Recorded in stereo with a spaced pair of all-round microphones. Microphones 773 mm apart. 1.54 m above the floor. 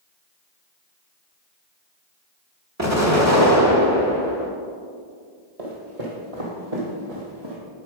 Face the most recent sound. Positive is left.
turn(degrees=-30)  # may be behind; listen again after turning